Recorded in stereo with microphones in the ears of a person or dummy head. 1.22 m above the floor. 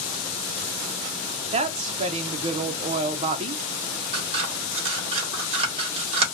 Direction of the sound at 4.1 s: 30° right (ahead or behind).